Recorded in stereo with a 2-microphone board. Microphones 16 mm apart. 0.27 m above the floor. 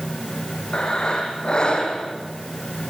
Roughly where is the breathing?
Left.